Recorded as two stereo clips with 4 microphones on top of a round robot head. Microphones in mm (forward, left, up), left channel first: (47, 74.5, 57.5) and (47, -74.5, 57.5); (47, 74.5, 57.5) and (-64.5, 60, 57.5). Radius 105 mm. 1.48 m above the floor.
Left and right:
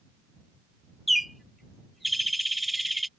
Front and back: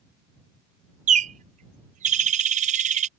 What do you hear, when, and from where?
1.1 s a bird: straight behind